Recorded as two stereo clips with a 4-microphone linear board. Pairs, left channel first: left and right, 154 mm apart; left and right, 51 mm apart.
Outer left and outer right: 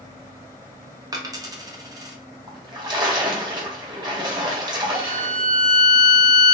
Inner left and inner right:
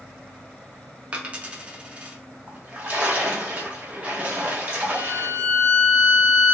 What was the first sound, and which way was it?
A dropped coin, 25° right (ahead or behind).